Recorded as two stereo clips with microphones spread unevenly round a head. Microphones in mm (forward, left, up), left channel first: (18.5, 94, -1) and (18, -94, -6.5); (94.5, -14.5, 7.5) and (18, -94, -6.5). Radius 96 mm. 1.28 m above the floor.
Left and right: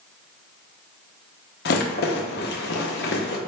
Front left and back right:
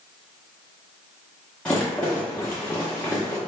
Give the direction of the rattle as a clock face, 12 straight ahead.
8 o'clock.